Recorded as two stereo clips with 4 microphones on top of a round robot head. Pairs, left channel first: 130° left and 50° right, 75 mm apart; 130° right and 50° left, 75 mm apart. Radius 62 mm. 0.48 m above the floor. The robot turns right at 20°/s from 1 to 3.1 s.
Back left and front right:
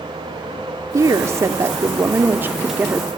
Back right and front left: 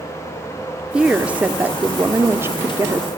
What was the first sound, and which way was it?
A woman speaking, 25° right.